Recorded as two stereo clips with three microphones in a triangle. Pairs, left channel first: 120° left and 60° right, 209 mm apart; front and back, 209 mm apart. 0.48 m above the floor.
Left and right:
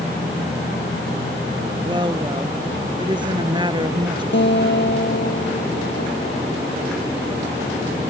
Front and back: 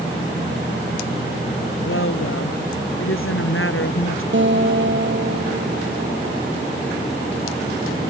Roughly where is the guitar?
Behind left.